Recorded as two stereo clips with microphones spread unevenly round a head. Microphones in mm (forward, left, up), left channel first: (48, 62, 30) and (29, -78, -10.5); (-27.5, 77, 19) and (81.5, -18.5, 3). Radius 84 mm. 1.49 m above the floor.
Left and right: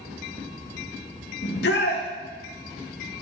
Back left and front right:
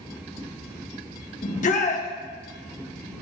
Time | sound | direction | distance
1.4 | a shout | 100° left | 1.9 m